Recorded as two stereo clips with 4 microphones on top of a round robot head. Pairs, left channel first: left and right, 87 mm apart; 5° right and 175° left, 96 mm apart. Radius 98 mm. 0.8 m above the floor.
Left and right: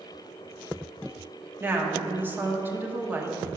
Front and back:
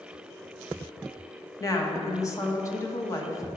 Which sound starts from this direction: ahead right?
A woman speaking, at 1.6 s.